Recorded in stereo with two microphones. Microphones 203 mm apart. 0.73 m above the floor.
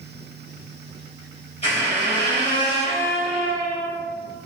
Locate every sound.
1.6 s a squeak: 30° left (ahead or behind), 1.9 m